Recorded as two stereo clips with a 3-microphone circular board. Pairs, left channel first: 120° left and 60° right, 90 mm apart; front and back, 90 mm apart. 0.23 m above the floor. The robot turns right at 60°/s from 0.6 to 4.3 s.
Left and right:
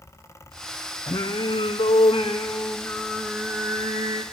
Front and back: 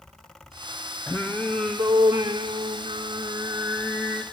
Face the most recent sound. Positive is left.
turn(degrees=-75)